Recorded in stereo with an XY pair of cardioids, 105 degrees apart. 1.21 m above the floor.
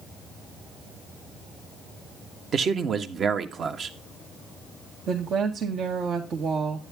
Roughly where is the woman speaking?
Ahead right.